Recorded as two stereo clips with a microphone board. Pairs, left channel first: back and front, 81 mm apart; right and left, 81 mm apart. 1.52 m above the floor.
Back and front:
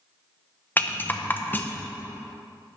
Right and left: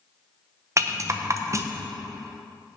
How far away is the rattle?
About 0.6 m.